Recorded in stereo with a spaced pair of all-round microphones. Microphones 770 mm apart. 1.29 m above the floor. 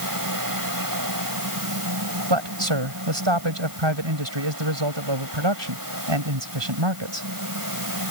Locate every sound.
0.0 s a fan: 25° right (ahead or behind)
2.3 s a man speaking: 35° right (ahead or behind)